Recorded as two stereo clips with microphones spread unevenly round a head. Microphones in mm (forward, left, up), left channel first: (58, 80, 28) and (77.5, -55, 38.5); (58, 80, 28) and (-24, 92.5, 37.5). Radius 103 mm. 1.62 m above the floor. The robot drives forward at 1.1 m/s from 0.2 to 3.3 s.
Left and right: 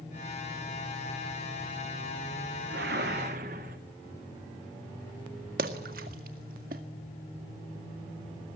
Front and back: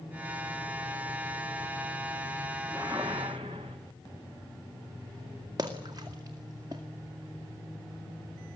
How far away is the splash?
About 2.0 m.